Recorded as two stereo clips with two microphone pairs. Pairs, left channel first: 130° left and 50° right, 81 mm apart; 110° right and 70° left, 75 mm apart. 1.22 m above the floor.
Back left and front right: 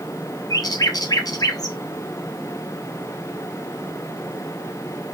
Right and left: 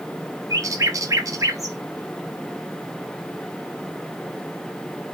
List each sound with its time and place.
0.5 s a bird: 100° left, 0.9 m